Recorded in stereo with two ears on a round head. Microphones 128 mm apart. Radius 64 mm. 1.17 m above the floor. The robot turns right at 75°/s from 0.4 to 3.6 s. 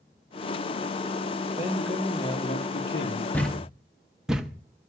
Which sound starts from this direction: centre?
A thud, at 3.3 s.